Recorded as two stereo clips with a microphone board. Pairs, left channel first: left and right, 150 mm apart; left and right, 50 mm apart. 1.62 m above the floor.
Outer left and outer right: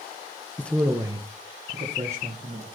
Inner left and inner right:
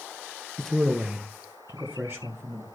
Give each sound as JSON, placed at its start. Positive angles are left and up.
{"t": 0.6, "sound": "a man speaking", "side_deg": 15, "distance_m": 0.6}